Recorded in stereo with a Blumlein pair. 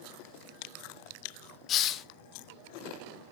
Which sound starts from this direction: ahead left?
A hiss, at 1.7 s.